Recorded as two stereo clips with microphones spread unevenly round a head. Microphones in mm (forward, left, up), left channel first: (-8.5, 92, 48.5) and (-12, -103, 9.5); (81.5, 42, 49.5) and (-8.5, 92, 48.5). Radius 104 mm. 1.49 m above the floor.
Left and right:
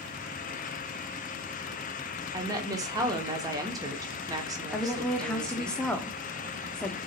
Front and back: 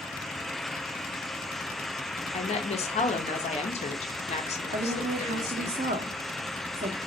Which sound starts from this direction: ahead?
A woman speaking, at 2.3 s.